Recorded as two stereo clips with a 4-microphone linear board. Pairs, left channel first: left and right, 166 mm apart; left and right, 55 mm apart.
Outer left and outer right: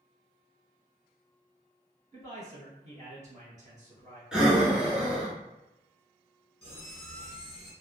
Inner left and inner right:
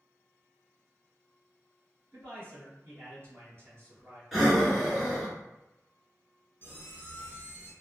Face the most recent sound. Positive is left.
turn(degrees=30)  # may be behind; listen again after turning